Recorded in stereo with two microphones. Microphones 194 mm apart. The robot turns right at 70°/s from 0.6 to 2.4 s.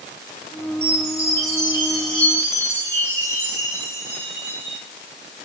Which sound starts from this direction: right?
A chime, at 0.8 s.